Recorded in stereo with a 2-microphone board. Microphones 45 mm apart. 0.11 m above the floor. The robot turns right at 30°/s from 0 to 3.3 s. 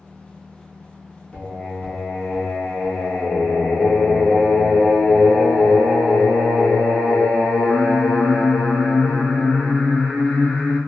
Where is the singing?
45° left, 1.4 m; by 10.8 s 105° left, 1.4 m.